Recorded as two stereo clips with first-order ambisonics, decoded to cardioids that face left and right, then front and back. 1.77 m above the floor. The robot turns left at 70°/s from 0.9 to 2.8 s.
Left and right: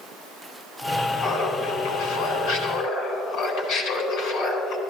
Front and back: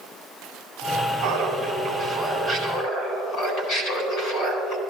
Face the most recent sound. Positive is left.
turn(degrees=40)